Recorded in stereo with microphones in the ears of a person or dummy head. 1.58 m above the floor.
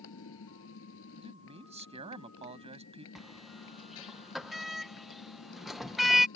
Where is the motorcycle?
70° left (ahead or behind).